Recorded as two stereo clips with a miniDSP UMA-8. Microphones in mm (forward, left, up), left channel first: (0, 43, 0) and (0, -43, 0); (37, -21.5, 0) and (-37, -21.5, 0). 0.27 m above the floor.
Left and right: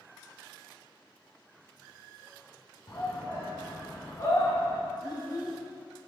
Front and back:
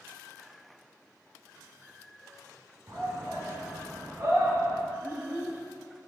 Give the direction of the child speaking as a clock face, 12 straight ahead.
8 o'clock.